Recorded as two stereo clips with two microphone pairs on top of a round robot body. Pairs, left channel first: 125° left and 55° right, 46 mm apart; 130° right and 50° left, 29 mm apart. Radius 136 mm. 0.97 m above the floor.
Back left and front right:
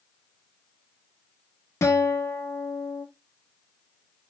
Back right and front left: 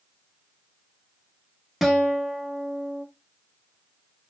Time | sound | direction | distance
1.8 | a guitar | 135° left | 0.9 m